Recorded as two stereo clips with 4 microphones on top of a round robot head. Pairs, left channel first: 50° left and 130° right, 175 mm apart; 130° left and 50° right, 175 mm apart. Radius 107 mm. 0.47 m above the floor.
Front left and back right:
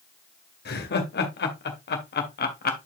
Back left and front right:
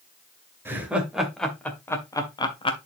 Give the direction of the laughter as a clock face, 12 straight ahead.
11 o'clock.